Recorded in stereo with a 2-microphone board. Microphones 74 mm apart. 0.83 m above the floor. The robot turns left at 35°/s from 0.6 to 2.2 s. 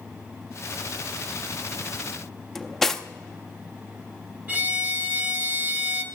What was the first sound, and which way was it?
Cutlery clinking, 5° left (ahead or behind).